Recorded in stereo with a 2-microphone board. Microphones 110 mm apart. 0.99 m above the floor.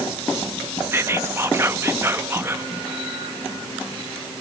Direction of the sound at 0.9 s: 20° right (ahead or behind).